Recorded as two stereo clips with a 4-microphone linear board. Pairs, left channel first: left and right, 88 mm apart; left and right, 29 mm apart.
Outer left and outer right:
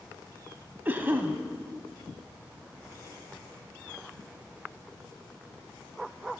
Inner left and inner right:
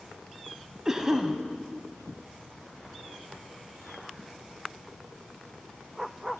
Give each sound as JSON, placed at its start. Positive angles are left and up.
{"t": 0.8, "sound": "a cough", "side_deg": -20, "distance_m": 1.0}